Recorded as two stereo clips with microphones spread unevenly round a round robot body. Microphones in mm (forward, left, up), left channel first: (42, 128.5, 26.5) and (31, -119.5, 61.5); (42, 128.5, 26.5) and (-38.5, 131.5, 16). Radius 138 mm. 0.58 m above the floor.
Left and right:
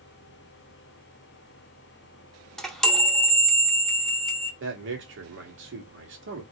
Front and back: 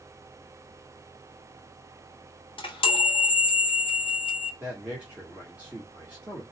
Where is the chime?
Straight ahead, 0.9 m.